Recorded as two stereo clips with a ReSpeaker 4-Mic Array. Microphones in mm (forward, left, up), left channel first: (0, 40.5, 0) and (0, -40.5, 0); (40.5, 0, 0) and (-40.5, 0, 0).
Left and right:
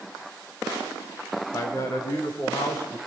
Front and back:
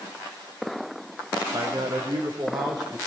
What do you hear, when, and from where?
1.5 s a man speaking: 140° left, 5.5 m; by 3.0 s 145° left, 6.5 m